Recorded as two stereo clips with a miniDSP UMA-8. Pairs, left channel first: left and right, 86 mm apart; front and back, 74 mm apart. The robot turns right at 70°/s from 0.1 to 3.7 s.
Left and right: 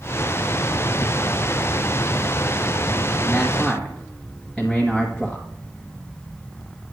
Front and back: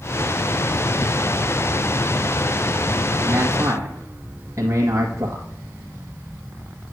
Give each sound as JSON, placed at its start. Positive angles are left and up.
{"t": 3.2, "sound": "a man speaking", "azimuth_deg": 145, "distance_m": 1.3}